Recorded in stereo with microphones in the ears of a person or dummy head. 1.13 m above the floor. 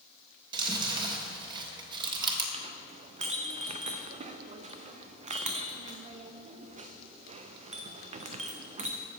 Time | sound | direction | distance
0.5 | chewing | 25° right (ahead or behind) | 1.2 m
2.5 | a clink | 35° right (ahead or behind) | 0.6 m